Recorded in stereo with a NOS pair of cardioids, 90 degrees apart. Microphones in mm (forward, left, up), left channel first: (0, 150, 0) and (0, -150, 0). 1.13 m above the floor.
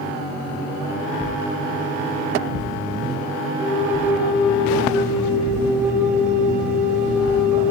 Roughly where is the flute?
Ahead.